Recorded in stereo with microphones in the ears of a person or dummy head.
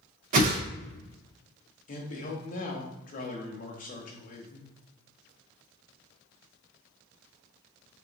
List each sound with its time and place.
0.3 s a whoosh: 45° right (ahead or behind), 0.6 m
1.9 s a man speaking: 40° left (ahead or behind), 0.9 m